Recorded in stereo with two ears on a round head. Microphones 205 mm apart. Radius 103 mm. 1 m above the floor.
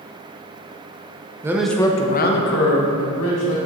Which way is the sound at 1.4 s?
15° right (ahead or behind).